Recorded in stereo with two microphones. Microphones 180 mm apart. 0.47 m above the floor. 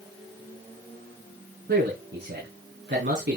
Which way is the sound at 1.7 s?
70° right (ahead or behind).